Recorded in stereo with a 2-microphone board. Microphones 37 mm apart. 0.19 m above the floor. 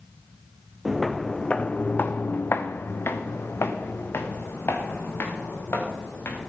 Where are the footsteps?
5° right (ahead or behind), 0.8 m; by 6.5 s 80° left, 3.5 m.